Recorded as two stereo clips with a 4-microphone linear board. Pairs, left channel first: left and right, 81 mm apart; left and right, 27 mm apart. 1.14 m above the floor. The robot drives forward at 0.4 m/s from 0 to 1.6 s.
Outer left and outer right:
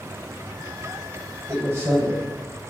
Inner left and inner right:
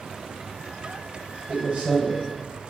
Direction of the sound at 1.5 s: 35° right (ahead or behind).